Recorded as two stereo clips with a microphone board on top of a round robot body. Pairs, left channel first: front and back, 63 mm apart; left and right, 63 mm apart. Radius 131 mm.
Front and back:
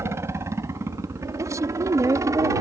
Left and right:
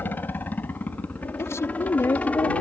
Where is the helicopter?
145° left; by 2.6 s 160° left.